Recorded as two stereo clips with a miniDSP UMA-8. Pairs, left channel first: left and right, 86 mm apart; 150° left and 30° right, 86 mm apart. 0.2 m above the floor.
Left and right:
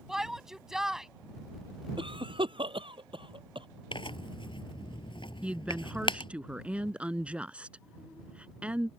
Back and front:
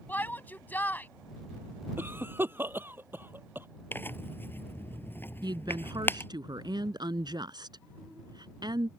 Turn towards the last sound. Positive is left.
turn(degrees=-15)